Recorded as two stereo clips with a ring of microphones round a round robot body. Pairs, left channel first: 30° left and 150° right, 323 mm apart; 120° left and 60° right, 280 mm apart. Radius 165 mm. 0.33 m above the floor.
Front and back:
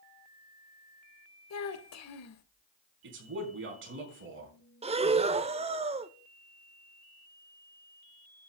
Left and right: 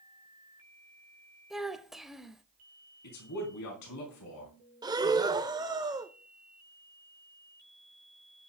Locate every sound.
1.5 s a child speaking: 30° left, 1.3 m
3.0 s a man speaking: 155° left, 4.5 m
4.8 s breathing: 115° right, 0.8 m